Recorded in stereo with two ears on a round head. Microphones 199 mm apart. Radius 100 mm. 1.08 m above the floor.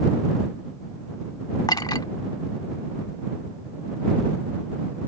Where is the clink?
20° left (ahead or behind).